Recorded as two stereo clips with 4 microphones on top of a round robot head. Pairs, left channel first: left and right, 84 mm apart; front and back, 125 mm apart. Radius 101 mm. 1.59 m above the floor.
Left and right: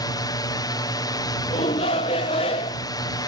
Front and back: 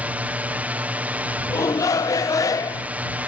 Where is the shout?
65° left.